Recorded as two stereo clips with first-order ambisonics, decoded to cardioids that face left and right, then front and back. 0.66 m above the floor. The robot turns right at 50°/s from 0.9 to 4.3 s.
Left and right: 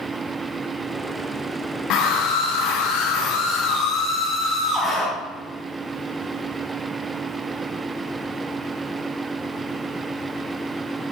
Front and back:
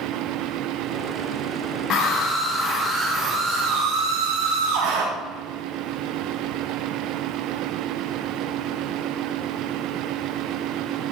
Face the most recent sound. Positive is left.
turn(degrees=175)